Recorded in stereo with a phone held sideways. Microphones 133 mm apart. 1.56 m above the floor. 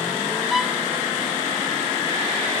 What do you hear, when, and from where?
0.5 s a violin: centre (ahead or behind)